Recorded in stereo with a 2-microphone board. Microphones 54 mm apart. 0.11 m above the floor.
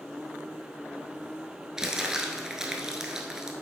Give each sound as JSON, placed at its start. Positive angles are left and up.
{"t": 1.8, "sound": "crumpling", "side_deg": -10, "distance_m": 1.2}